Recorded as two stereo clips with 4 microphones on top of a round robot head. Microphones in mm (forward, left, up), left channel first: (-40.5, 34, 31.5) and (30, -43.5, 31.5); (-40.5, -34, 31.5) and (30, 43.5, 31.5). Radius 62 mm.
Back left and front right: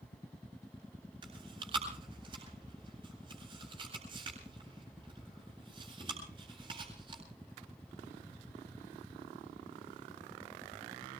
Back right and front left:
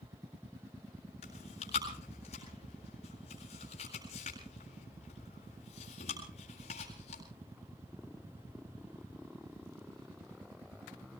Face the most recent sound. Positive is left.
turn(degrees=-95)